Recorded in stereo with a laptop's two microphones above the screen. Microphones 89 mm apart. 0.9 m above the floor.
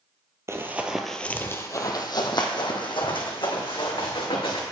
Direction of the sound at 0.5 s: 30° right (ahead or behind).